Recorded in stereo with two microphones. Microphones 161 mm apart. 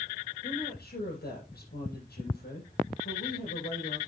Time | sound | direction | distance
0.4 | a woman speaking | 80° left | 6.5 m